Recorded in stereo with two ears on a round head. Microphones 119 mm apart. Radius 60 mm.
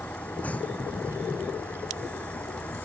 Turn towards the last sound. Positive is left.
turn(degrees=10)  # may be behind; listen again after turning